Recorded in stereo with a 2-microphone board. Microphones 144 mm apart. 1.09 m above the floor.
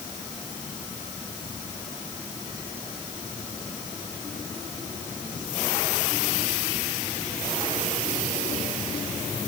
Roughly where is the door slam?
No door slam in this recording.